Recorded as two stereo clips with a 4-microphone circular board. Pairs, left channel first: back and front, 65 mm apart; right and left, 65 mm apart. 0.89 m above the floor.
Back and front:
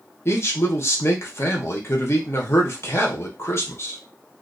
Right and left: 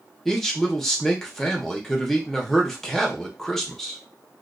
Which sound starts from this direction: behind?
A man speaking, at 0.2 s.